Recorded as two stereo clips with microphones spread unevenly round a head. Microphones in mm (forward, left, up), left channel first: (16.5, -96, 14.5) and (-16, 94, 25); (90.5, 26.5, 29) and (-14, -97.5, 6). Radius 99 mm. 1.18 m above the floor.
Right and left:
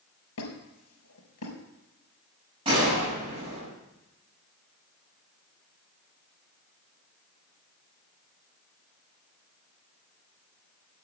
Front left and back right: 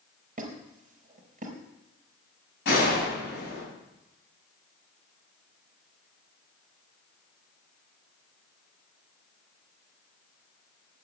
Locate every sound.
0.4 s a squeak: 85° right, 3.5 m
2.6 s a gunshot: 35° left, 6.5 m